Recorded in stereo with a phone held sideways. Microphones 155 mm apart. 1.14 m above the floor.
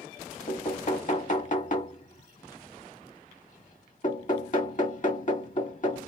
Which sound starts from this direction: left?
Knocking, at 0.5 s.